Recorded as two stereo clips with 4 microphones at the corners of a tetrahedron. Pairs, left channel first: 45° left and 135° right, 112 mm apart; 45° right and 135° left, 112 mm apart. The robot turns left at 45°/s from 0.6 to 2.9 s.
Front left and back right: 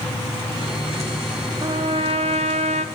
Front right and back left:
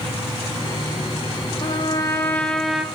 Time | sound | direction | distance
1.6 | a trumpet | 85° right | 0.7 m